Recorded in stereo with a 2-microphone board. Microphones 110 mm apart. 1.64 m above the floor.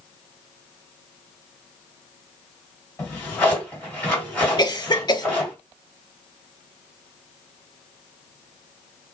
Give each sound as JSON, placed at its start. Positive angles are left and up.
{"t": 3.0, "sound": "a drawer", "side_deg": 15, "distance_m": 1.9}
{"t": 4.6, "sound": "a cough", "side_deg": 40, "distance_m": 0.6}